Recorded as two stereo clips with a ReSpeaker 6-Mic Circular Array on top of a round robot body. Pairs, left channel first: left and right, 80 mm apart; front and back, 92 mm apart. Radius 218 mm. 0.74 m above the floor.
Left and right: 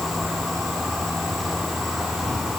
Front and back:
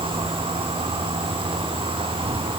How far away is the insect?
About 3 m.